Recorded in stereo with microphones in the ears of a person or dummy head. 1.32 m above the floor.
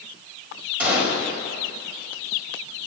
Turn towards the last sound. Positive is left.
turn(degrees=-10)  # may be behind; listen again after turning